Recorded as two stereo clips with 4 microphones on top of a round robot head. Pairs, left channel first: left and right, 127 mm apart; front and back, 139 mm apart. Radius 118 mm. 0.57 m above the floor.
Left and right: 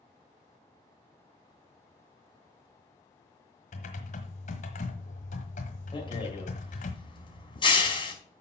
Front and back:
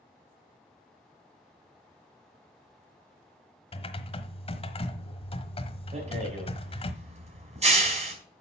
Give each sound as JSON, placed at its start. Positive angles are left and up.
{"t": 3.7, "sound": "typing on a keyboard", "azimuth_deg": 50, "distance_m": 1.3}
{"t": 5.9, "sound": "a rattle", "azimuth_deg": 140, "distance_m": 4.5}